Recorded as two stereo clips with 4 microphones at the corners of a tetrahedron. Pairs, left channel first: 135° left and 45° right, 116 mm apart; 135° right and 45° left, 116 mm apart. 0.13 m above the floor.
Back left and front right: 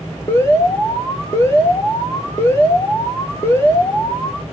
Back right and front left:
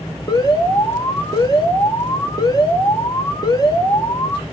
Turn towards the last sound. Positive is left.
turn(degrees=-170)